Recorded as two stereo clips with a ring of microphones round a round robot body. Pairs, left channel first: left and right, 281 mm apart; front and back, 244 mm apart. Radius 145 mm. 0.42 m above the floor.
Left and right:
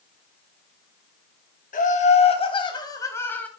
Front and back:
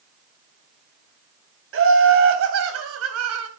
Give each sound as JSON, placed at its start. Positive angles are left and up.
{"t": 1.7, "sound": "laughter", "azimuth_deg": 150, "distance_m": 3.0}